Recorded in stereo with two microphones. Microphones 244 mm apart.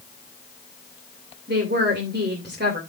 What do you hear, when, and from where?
1.5 s a woman speaking: 45° right (ahead or behind), 2.5 m